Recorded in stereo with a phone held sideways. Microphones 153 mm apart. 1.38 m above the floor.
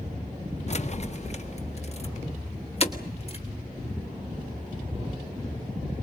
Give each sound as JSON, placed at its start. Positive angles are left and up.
{"t": 0.7, "sound": "keys jangling", "side_deg": 45, "distance_m": 0.7}